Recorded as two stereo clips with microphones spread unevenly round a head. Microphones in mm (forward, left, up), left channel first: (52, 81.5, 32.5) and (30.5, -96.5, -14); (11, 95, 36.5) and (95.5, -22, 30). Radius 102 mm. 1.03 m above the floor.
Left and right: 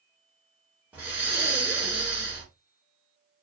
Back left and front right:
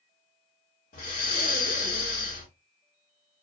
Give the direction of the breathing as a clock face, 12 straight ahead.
6 o'clock.